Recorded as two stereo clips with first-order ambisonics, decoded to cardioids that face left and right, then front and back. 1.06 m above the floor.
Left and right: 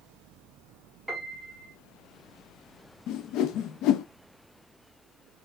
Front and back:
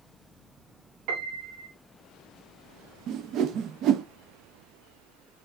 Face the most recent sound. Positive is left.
turn(degrees=130)